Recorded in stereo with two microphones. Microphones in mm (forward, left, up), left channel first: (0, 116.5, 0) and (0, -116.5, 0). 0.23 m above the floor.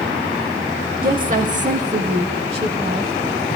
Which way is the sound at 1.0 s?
40° right (ahead or behind).